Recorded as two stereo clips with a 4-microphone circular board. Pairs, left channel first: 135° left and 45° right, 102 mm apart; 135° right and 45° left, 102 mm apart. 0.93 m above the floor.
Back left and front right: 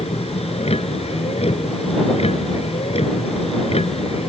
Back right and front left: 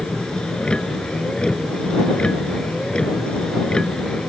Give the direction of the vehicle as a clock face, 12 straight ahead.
7 o'clock.